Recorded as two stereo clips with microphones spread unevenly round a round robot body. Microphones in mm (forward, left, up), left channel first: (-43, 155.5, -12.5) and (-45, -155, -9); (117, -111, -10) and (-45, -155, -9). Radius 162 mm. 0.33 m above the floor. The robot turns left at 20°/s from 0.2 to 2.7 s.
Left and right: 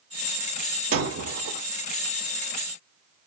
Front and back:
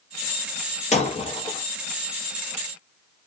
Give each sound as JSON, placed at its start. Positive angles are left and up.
{"t": 0.9, "sound": "breaking glass", "azimuth_deg": -35, "distance_m": 1.6}